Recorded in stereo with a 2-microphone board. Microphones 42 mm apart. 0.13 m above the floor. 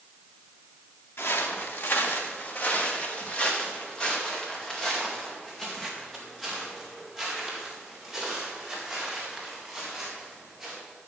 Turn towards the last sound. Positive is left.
turn(degrees=-5)  # may be behind; listen again after turning